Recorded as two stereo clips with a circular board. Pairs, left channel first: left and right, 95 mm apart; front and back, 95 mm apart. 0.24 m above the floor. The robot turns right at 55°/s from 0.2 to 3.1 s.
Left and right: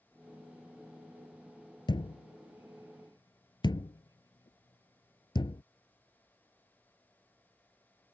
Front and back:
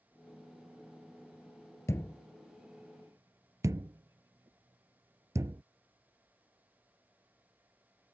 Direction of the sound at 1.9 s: 55° left.